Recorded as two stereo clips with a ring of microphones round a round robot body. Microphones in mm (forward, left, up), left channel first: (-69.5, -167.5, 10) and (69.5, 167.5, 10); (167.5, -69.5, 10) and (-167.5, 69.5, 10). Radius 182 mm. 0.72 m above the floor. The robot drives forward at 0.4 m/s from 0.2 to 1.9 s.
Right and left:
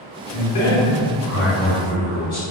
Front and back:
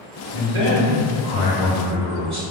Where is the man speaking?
145° right, 1.0 m; by 2.4 s 160° right, 1.5 m.